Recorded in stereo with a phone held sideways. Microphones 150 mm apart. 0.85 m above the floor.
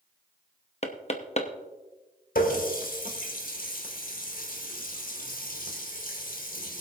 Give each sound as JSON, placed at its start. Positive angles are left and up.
{"t": 0.8, "sound": "knocking", "side_deg": 50, "distance_m": 0.9}
{"t": 2.4, "sound": "a running tap", "side_deg": 75, "distance_m": 2.0}